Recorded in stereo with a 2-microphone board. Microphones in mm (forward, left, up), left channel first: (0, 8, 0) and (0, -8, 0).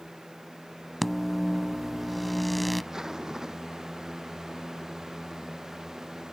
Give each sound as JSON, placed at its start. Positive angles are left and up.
{"t": 1.0, "sound": "a microwave", "side_deg": 5}
{"t": 2.9, "sound": "a zipper", "side_deg": -30}